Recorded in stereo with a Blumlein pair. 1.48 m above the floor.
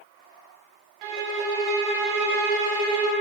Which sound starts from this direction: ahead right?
A violin, at 1.0 s.